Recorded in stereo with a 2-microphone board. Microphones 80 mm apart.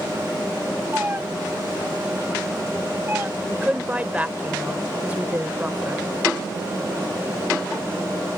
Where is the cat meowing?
25° right (ahead or behind); by 3.3 s 30° right (ahead or behind).